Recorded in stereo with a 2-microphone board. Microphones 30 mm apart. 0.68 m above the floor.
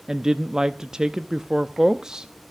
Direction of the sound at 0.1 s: 20° right (ahead or behind).